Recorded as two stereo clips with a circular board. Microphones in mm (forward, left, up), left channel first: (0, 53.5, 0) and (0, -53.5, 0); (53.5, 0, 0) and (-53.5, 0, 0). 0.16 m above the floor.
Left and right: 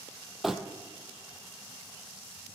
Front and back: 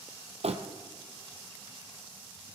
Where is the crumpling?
175° right, 1.3 m.